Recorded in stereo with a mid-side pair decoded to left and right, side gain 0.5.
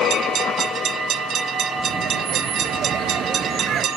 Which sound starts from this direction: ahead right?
Laughter, at 1.8 s.